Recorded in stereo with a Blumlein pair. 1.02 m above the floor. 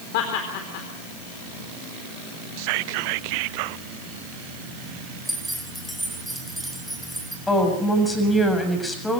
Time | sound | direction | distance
0.1 | laughter | 45° left | 4 m
2.6 | whispering | 45° right | 0.7 m
5.2 | keys jangling | straight ahead | 4.5 m
7.5 | a woman speaking | 10° left | 7 m